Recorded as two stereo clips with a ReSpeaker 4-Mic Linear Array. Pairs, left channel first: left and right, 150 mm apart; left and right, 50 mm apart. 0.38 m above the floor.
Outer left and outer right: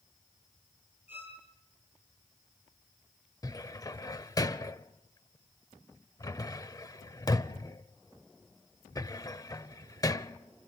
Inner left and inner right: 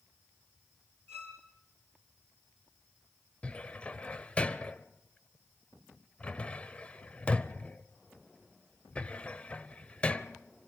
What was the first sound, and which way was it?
A violin, 45° left (ahead or behind).